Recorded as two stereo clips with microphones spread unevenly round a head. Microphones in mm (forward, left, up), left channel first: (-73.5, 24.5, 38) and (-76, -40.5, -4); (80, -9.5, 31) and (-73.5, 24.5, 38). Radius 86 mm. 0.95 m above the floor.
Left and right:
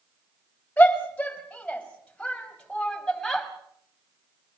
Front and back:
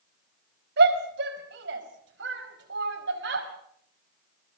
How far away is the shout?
About 5 m.